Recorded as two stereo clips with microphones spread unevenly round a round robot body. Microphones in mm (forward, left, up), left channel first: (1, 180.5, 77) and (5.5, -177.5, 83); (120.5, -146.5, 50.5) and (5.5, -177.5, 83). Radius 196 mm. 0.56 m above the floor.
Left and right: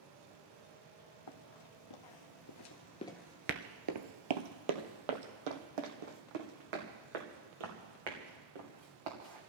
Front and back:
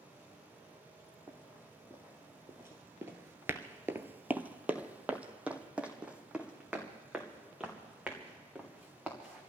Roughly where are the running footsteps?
Left.